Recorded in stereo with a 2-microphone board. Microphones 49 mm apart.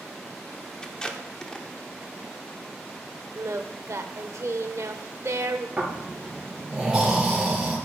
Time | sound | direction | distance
0.8 | tape being pulled | 15° left (ahead or behind) | 0.9 m
3.4 | singing | 65° right (ahead or behind) | 0.7 m
5.8 | snoring | 15° right (ahead or behind) | 3 m